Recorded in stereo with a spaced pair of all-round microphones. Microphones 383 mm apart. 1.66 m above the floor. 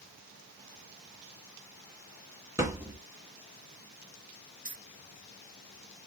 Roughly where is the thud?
Centre.